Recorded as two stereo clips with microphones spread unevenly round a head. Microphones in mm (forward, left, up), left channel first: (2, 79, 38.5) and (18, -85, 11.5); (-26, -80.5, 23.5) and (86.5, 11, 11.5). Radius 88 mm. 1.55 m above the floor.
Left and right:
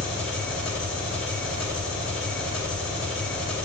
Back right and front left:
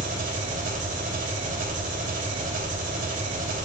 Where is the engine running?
20° left, 2.5 m.